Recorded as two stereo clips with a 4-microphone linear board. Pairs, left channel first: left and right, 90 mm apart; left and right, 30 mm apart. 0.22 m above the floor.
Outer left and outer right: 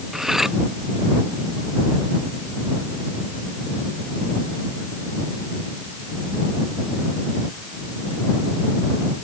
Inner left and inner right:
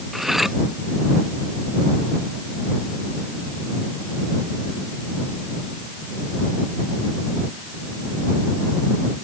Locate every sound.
0.1 s cutlery clinking: 5° right (ahead or behind)